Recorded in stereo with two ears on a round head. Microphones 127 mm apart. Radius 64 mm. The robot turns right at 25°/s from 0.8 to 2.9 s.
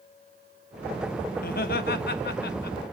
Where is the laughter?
65° left, 1.1 m; by 2.8 s 100° left, 1.1 m.